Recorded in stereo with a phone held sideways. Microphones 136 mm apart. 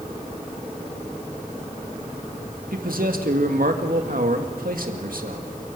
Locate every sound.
2.7 s a man speaking: 85° right, 2 m